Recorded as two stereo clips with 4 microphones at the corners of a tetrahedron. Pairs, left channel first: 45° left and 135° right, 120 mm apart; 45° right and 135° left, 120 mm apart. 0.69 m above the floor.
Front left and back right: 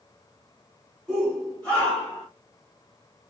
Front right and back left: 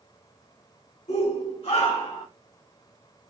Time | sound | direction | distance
1.1 | a shout | 45° right | 3 m